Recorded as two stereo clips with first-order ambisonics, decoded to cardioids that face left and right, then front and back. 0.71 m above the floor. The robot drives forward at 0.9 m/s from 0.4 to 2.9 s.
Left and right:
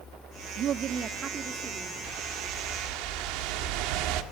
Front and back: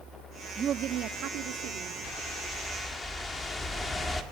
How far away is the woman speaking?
About 0.7 m.